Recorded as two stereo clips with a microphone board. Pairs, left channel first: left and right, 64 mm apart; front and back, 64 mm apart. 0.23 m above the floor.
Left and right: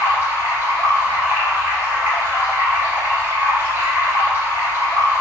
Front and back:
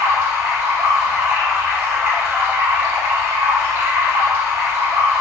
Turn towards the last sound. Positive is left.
turn(degrees=-135)